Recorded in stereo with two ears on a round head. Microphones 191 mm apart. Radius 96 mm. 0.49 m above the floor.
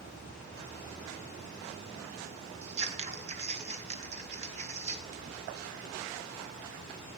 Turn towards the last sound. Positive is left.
turn(degrees=-30)  # may be behind; listen again after turning